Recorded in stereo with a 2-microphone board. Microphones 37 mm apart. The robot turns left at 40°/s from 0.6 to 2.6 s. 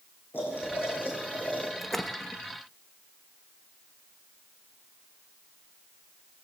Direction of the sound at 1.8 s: 5° left (ahead or behind).